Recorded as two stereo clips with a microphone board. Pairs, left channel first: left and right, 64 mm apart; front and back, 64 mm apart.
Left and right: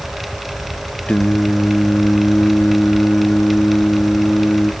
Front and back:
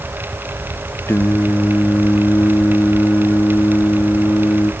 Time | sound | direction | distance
1.1 | singing | 25° left | 0.6 m